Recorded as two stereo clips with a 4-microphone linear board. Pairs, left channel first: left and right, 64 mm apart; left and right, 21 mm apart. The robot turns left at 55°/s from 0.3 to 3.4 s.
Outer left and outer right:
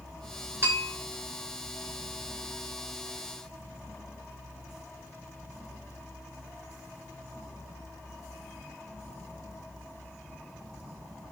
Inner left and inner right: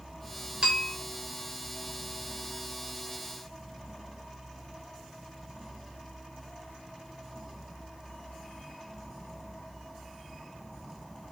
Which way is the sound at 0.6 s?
45° right (ahead or behind).